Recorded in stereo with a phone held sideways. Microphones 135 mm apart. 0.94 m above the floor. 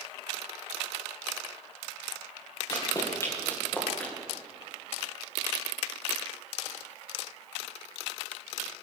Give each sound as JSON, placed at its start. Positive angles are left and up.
{"t": 2.7, "sound": "running footsteps", "side_deg": 30, "distance_m": 4.0}